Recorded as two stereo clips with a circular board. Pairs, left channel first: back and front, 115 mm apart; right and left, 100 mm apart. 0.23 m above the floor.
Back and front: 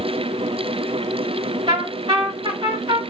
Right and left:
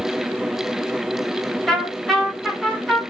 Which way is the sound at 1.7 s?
5° right.